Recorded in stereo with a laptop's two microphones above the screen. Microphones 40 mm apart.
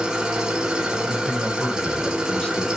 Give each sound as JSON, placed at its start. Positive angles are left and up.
{"t": 0.0, "sound": "an engine running", "side_deg": -15, "distance_m": 0.7}
{"t": 1.0, "sound": "a man speaking", "side_deg": 25, "distance_m": 1.1}